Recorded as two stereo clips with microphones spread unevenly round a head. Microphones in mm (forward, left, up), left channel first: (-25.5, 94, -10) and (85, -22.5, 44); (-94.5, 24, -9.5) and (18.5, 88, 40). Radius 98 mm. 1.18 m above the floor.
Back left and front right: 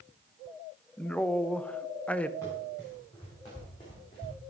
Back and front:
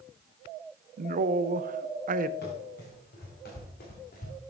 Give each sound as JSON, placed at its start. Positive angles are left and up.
{"t": 1.0, "sound": "a man speaking", "azimuth_deg": 60, "distance_m": 0.5}
{"t": 2.4, "sound": "running footsteps", "azimuth_deg": -145, "distance_m": 5.0}